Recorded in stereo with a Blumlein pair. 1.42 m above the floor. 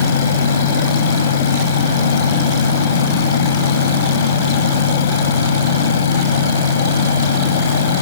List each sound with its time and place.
0.0 s a fan: 65° left